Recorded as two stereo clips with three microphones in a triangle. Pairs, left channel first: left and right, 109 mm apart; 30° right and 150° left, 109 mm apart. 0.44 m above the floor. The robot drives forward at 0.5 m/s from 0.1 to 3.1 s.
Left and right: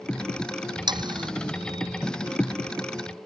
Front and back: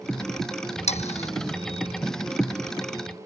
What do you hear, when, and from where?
0.9 s sawing: 40° right